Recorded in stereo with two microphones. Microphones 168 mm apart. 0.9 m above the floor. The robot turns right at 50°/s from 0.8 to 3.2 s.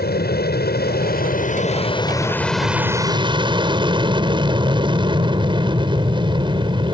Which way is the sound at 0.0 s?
90° left.